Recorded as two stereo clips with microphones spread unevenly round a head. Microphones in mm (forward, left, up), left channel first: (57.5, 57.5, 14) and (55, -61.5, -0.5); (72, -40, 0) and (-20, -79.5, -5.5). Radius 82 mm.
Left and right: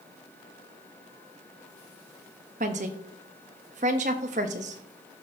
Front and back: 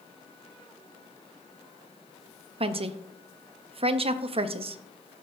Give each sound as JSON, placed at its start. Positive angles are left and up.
{"t": 2.6, "sound": "a woman speaking", "azimuth_deg": -130, "distance_m": 0.8}